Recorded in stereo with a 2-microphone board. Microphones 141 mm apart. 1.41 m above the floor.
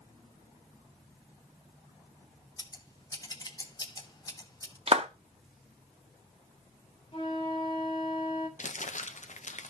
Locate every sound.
2.6 s scissors: 25° left (ahead or behind), 1.0 m
4.9 s a clap: 45° right (ahead or behind), 1.2 m
7.1 s a flute: 40° left (ahead or behind), 2 m
8.6 s crumpling: 60° left (ahead or behind), 0.8 m